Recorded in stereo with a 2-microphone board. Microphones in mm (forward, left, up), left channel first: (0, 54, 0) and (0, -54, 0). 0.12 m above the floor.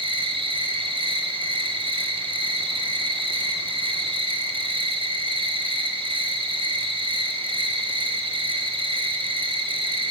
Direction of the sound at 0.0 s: 60° right (ahead or behind).